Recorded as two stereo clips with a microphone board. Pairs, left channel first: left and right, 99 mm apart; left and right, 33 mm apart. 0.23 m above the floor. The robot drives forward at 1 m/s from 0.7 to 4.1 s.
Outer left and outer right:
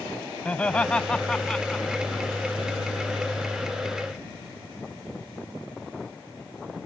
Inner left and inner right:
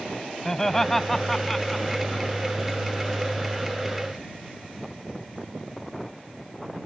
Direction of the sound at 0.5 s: 15° left (ahead or behind).